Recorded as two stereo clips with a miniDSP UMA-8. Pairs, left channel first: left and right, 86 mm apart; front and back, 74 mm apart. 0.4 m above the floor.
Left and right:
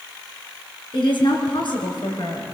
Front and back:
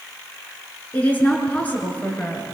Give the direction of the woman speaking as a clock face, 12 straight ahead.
10 o'clock.